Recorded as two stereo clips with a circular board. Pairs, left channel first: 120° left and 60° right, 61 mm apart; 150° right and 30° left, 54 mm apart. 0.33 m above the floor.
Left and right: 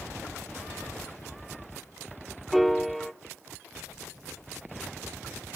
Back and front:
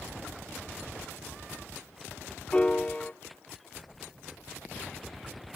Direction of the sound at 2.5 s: 150° right.